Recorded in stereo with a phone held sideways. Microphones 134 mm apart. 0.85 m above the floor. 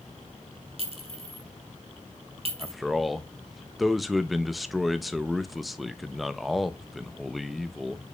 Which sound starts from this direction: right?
A clink, at 0.8 s.